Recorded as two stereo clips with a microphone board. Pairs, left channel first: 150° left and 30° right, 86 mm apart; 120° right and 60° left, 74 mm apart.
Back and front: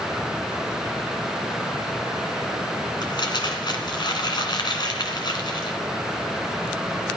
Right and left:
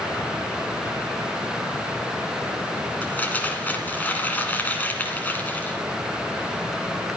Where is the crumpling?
175° left, 2 m.